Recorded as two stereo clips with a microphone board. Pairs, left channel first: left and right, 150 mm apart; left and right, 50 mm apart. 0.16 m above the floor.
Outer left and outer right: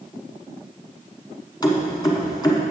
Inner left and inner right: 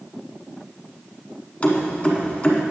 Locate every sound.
1.6 s keys jangling: 30° left (ahead or behind), 1.1 m